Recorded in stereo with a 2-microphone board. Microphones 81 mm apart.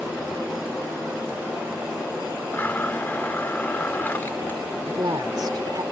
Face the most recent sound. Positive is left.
turn(degrees=-55)  # may be behind; listen again after turning